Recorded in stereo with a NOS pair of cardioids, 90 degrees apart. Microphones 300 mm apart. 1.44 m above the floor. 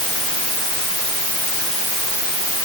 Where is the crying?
No crying in this recording.